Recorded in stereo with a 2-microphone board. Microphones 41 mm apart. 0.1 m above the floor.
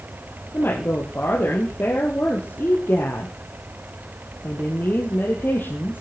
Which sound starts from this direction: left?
A woman speaking, at 0.5 s.